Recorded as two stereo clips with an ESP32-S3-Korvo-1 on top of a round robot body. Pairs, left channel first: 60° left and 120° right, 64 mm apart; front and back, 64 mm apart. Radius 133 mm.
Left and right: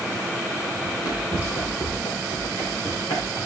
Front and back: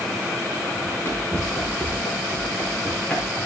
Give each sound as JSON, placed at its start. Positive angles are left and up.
{"t": 0.8, "sound": "running footsteps", "azimuth_deg": 55, "distance_m": 4.5}